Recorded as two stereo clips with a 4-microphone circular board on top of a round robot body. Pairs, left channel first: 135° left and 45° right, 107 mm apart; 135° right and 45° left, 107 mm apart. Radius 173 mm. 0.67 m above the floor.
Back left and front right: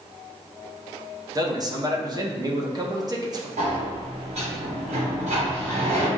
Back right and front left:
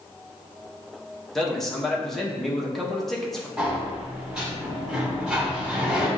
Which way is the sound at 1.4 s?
50° right.